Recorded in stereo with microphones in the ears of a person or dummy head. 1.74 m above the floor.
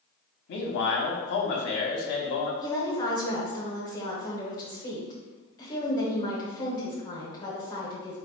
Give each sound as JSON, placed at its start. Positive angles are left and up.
{"t": 0.5, "sound": "a man speaking", "side_deg": 60, "distance_m": 0.8}
{"t": 2.6, "sound": "a woman speaking", "side_deg": 25, "distance_m": 1.1}